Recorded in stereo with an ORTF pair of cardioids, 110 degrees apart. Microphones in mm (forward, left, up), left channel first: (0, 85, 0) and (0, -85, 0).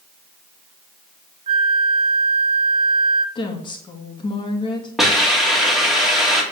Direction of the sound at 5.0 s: Straight ahead.